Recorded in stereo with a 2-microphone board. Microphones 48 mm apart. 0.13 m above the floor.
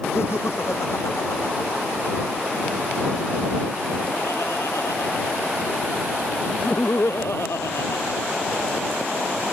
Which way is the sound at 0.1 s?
60° left (ahead or behind).